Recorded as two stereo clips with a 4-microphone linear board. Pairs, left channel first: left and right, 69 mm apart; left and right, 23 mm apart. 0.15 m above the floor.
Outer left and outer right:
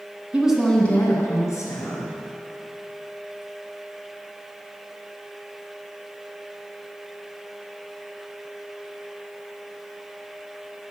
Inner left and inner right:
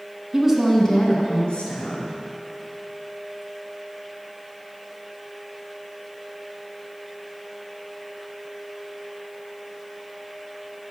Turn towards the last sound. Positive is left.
turn(degrees=55)  # may be behind; listen again after turning